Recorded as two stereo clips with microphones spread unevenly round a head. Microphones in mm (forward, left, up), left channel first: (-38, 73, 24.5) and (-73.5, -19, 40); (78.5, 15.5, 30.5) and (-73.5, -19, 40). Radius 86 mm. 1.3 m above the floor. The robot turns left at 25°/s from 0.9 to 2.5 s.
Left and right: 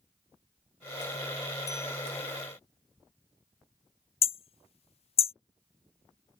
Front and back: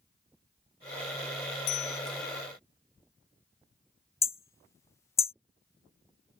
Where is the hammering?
85° left.